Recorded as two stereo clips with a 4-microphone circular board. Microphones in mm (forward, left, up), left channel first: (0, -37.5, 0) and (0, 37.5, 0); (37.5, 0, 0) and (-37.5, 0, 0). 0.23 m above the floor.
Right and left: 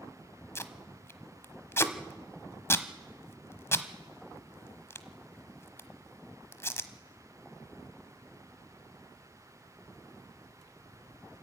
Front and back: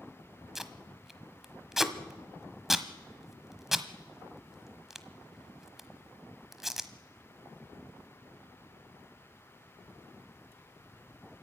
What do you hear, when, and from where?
0.6 s tape being pulled: 95° right, 1.0 m